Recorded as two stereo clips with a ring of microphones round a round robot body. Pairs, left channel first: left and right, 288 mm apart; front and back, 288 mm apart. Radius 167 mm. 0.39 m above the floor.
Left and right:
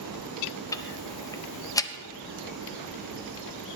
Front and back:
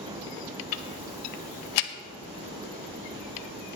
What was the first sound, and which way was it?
Ticking, 10° left.